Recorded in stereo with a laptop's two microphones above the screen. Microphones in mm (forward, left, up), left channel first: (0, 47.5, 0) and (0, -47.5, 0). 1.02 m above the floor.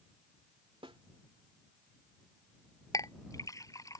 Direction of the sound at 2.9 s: 35° left (ahead or behind).